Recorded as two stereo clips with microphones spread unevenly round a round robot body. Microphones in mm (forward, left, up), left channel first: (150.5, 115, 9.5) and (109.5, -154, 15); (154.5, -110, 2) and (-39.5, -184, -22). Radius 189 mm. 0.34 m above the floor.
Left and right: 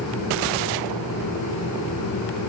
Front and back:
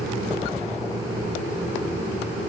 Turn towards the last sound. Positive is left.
No sound to turn to.